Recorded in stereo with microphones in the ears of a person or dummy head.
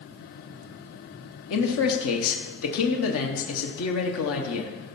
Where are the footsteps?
No footsteps in this recording.